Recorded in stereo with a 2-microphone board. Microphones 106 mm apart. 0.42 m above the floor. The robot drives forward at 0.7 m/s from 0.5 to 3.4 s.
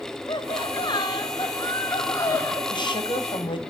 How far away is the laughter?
About 1.8 m.